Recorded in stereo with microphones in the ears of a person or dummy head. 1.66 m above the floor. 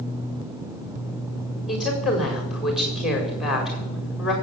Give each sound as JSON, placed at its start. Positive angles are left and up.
{"t": 1.7, "sound": "a woman speaking", "side_deg": 5, "distance_m": 4.5}